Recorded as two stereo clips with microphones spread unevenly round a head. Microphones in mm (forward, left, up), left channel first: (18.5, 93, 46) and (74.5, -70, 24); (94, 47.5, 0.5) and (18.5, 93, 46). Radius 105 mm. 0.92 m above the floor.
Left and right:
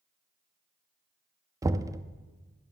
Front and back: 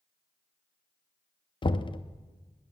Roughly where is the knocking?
Ahead.